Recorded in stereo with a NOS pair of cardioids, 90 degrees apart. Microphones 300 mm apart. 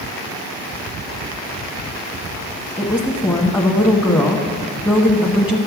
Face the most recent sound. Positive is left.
turn(degrees=10)